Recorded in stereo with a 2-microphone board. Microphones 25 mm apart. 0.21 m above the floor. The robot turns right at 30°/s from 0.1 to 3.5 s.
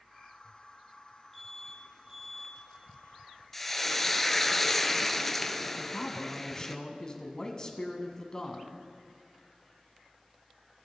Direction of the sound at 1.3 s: 15° left (ahead or behind).